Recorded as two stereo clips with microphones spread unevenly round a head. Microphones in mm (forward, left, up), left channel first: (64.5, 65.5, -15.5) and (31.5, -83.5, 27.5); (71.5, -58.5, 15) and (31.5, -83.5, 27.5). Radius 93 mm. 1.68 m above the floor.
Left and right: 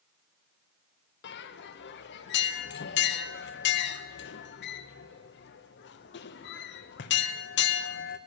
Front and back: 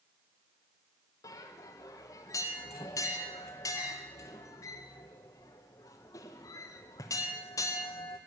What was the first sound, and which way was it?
A bell, 70° left.